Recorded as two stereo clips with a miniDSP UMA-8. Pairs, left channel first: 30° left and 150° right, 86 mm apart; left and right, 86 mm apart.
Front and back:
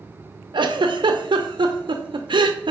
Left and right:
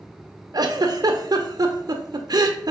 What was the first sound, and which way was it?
A giggle, 130° right.